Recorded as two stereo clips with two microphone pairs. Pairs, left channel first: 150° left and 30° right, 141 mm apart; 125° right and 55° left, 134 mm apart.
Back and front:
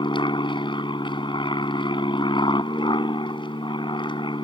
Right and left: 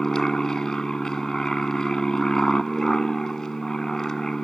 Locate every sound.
0.0 s an aircraft: 155° left